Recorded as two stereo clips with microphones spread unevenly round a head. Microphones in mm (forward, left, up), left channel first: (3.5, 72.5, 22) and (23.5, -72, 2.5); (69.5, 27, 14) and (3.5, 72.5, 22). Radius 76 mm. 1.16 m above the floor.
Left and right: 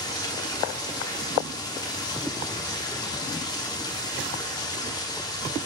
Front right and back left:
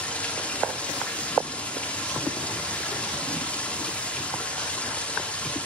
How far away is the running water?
About 1.0 m.